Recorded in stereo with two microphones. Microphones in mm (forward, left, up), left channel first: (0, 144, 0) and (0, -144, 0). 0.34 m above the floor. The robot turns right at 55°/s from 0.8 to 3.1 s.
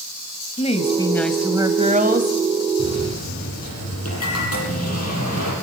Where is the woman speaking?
150° left, 1.9 m; by 2.4 s 120° right, 1.9 m.